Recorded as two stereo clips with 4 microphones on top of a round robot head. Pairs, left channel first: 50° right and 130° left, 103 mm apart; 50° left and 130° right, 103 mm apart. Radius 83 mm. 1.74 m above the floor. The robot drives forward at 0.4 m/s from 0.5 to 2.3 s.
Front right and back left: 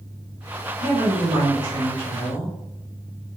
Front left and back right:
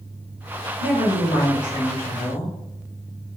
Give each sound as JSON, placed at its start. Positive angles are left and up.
{"t": 0.8, "sound": "a woman speaking", "azimuth_deg": 75, "distance_m": 1.5}